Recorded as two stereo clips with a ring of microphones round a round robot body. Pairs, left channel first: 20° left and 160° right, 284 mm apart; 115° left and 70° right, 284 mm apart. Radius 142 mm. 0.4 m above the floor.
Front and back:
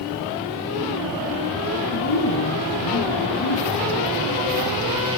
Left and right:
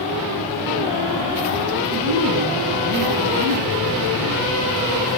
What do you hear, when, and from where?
1.9 s a woman speaking: 20° right, 2 m